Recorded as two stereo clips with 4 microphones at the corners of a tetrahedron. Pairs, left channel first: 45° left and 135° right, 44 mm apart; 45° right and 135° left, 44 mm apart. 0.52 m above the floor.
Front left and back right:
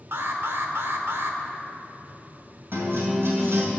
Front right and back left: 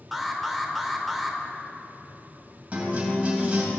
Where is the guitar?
165° right, 3 m.